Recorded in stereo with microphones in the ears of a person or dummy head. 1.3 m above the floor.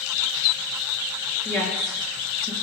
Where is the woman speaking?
Centre (ahead or behind), 1.2 m.